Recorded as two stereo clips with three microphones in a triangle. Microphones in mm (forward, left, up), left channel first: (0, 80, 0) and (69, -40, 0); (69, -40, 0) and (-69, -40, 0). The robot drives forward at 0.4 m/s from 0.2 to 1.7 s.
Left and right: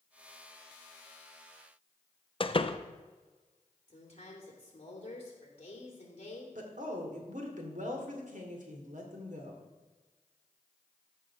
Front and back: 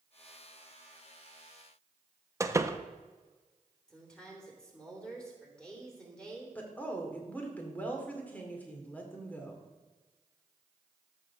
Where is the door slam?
125° left, 0.5 m.